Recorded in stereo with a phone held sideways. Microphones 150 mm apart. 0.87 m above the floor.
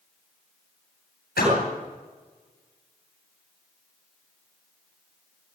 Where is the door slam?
90° left, 10 m.